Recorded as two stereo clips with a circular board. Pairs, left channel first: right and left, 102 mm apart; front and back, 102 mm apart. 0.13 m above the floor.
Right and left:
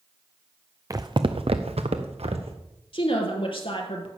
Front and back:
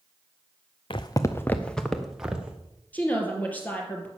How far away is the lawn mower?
I don't hear a lawn mower.